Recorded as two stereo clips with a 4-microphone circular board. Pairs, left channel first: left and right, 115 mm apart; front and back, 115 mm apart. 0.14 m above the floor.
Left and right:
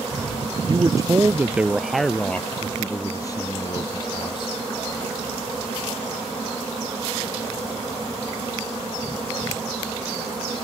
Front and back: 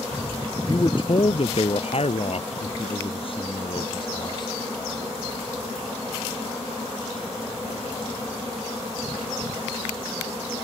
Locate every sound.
0.7 s a man speaking: 45° right; by 4.5 s 45° left